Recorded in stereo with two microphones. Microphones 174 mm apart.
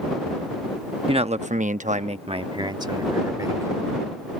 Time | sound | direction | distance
1.1 | a man speaking | 30° right (ahead or behind) | ?